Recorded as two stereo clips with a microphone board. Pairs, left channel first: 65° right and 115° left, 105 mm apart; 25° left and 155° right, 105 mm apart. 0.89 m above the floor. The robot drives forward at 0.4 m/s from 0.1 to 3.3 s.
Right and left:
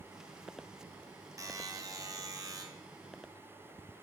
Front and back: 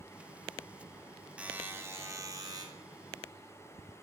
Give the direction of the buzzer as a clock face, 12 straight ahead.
8 o'clock.